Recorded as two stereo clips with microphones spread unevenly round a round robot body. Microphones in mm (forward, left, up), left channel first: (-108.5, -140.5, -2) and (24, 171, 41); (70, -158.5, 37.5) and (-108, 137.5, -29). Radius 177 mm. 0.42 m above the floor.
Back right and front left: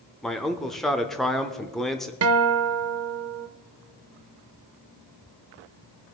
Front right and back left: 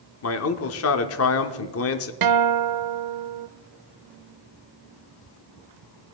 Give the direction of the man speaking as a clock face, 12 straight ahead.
1 o'clock.